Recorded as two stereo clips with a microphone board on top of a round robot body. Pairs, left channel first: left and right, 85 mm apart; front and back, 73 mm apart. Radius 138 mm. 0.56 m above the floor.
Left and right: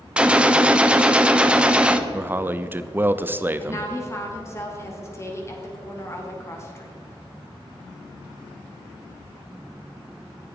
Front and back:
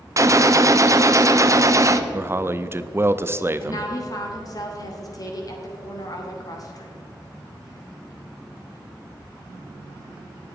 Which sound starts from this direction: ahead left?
A woman speaking, at 3.6 s.